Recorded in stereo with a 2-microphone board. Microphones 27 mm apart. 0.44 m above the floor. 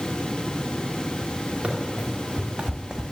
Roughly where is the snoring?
I don't hear snoring.